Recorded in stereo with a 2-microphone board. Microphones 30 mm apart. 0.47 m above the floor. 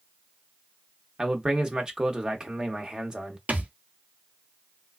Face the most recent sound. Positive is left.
turn(degrees=-60)  # may be behind; listen again after turning